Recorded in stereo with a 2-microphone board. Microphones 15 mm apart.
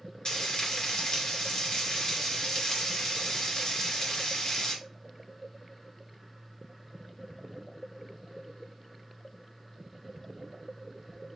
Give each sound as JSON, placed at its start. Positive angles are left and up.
{"t": 0.2, "sound": "frying", "side_deg": 55, "distance_m": 2.0}